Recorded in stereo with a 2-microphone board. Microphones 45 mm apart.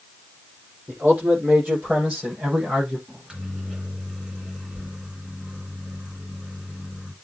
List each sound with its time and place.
0.9 s a man speaking: 45° right (ahead or behind), 7.5 m; by 3.0 s 20° right (ahead or behind), 7.5 m
3.1 s a microwave: 20° right (ahead or behind), 2 m